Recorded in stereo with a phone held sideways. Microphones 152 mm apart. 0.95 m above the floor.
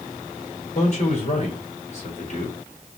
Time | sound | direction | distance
0.8 | a man speaking | 45° left (ahead or behind) | 3 m